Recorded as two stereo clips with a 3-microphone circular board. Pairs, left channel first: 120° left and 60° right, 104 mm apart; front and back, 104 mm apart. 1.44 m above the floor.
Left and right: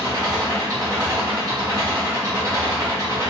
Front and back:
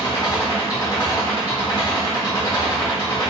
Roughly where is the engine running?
Ahead.